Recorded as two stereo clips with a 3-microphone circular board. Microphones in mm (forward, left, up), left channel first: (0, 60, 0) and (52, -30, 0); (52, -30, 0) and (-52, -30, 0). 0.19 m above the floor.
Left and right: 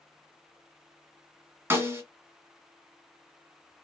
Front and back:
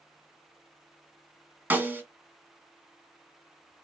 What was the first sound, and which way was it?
A snare drum, 115° right.